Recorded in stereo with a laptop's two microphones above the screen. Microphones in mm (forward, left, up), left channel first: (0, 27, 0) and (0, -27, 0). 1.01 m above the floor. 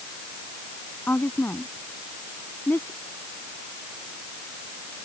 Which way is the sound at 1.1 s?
40° left (ahead or behind).